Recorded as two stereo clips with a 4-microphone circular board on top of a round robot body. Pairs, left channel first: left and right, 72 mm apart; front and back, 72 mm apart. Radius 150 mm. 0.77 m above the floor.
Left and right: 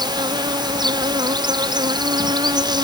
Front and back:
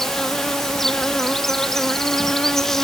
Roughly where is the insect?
Right.